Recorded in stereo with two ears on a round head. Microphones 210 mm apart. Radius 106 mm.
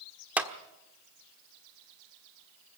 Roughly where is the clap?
Centre.